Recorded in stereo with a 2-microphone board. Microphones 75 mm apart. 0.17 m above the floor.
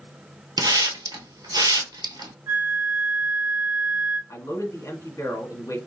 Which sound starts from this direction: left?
A man speaking, at 4.3 s.